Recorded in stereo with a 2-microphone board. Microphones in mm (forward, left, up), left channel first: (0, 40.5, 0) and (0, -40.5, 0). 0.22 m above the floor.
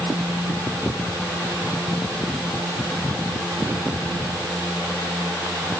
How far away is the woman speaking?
No woman speaking in this recording.